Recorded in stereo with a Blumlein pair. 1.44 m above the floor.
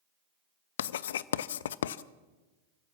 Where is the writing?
60° left, 0.6 m.